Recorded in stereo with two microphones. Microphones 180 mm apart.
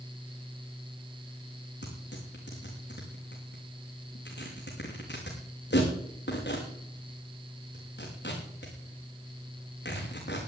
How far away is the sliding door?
I don't hear a sliding door.